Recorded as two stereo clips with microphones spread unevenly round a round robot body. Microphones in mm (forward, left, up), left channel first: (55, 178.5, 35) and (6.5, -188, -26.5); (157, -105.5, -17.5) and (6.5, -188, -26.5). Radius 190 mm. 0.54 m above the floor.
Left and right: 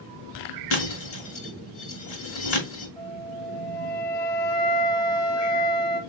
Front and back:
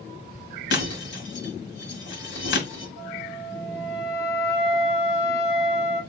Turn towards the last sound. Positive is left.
turn(degrees=55)